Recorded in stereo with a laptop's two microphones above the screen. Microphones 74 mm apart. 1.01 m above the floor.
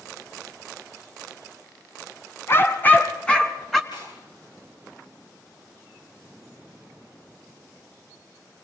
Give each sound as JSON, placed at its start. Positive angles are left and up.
{"t": 2.5, "sound": "a dog barking", "side_deg": 35, "distance_m": 2.0}
{"t": 3.9, "sound": "tearing paper", "side_deg": 75, "distance_m": 10.0}